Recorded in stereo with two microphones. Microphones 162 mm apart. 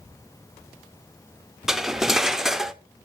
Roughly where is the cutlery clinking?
Centre.